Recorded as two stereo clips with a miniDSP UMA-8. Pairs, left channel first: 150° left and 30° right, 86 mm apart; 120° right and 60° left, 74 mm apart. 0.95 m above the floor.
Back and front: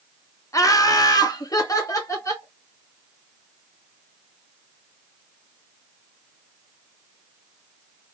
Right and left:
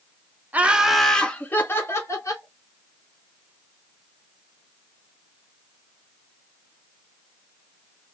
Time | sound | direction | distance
0.5 | laughter | 120° left | 0.8 m